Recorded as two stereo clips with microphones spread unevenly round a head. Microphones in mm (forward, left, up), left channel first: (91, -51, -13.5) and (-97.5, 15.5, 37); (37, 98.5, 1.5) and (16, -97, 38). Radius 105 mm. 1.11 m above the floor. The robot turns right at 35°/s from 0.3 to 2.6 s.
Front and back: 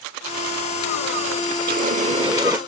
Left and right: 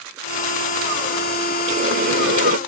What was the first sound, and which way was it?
A running tap, 155° right.